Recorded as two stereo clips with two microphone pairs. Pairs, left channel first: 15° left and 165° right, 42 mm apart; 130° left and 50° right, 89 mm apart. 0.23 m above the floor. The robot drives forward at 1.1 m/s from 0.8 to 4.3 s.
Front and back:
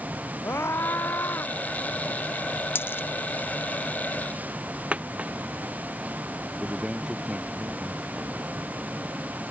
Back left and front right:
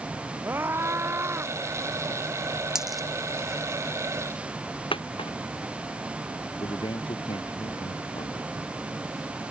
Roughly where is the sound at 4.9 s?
Behind left.